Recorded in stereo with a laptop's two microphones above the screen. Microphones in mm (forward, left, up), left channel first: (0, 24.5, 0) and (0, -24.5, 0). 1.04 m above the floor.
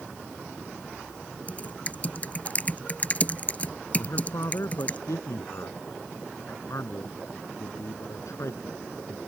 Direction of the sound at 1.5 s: 30° left (ahead or behind).